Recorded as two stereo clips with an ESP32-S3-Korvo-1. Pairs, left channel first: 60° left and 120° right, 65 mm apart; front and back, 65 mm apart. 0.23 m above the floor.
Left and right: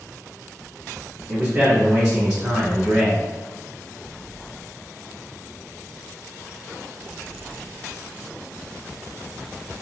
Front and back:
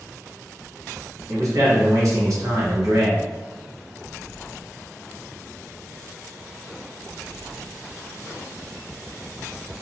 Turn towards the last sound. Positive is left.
turn(degrees=165)